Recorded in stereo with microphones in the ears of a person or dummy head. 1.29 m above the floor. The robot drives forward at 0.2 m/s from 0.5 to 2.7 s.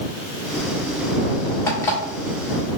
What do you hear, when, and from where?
1.7 s an alarm clock: 15° left (ahead or behind), 1.2 m